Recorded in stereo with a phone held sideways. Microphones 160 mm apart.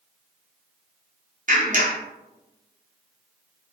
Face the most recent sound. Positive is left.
turn(degrees=-55)  # may be behind; listen again after turning